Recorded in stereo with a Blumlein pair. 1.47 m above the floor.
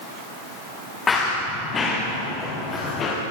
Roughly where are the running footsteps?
Ahead.